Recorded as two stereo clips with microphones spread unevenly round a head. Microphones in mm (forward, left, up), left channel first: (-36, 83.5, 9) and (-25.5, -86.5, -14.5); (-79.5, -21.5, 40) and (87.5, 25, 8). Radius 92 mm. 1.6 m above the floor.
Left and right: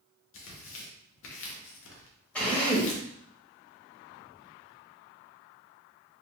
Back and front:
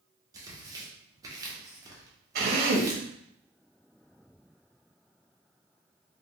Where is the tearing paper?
90° left, 0.9 m.